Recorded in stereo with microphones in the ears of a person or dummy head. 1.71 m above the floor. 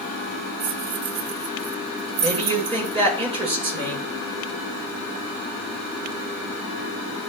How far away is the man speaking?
About 6.5 m.